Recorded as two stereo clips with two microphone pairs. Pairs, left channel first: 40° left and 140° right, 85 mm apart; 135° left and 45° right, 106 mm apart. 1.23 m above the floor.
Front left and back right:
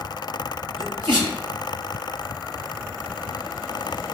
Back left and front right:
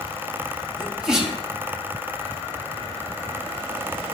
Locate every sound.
0.8 s a sneeze: 130° right, 3 m